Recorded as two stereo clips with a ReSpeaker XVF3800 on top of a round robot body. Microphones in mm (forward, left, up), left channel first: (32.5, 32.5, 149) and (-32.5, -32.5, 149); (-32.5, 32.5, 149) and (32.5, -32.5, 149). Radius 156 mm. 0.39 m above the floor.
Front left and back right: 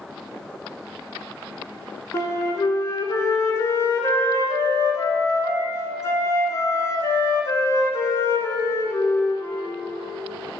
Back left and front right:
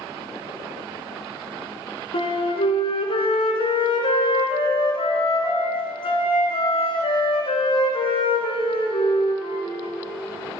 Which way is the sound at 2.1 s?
105° left.